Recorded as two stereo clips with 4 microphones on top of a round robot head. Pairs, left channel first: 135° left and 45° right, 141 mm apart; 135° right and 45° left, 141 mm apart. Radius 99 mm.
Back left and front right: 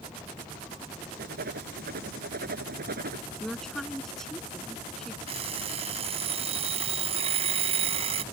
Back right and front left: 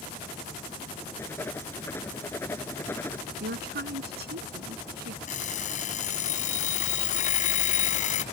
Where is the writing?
60° right.